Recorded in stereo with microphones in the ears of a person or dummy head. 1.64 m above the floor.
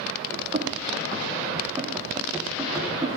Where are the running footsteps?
30° right (ahead or behind), 5.5 m; by 3.1 s centre (ahead or behind), 5.5 m.